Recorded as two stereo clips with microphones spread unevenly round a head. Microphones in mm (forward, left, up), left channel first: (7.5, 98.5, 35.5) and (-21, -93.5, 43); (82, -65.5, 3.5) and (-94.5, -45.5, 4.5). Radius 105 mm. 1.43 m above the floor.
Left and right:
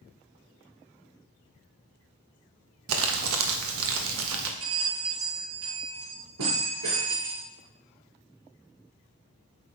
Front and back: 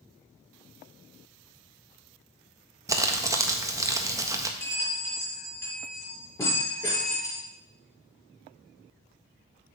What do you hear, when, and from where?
2.9 s crumpling: 115° right, 1.5 m
4.6 s a bell: 80° right, 6.5 m